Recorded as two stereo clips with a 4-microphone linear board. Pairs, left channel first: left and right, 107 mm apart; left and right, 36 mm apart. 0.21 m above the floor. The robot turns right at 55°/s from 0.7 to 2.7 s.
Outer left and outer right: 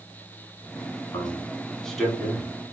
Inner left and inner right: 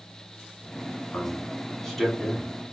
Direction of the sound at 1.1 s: 35° left (ahead or behind).